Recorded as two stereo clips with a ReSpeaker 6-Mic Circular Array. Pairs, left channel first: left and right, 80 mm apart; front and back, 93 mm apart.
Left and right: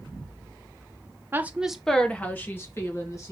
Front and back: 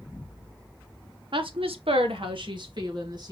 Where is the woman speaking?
150° right, 1.0 m; by 3.3 s 140° left, 2.5 m.